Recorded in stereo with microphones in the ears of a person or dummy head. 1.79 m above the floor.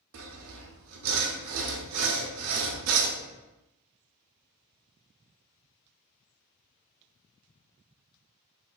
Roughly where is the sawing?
Right.